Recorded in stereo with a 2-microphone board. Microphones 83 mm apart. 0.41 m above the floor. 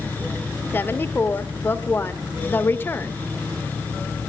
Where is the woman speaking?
25° left (ahead or behind), 0.9 m.